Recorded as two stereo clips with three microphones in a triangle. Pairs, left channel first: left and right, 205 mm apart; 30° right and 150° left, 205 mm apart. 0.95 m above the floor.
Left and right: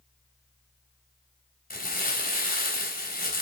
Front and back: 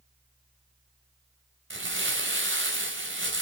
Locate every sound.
1.7 s crumpling: 135° left, 3.5 m